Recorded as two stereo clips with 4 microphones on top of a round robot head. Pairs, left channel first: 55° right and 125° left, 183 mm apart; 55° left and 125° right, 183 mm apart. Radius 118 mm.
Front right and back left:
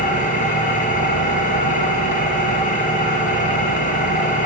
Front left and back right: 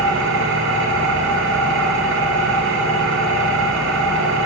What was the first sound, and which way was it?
An engine running, 105° right.